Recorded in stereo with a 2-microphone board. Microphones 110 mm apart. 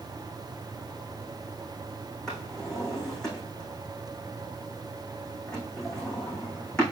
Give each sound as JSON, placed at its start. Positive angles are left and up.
{"t": 2.3, "sound": "a drawer", "side_deg": 5, "distance_m": 5.0}